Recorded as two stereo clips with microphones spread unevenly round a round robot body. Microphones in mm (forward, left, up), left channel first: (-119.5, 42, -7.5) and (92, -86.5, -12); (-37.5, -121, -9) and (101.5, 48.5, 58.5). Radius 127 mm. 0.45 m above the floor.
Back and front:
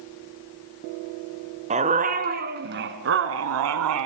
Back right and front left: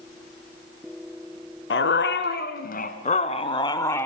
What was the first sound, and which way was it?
A dog barking, 95° right.